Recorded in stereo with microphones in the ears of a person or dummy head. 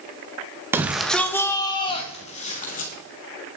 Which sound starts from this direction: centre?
A shout, at 0.7 s.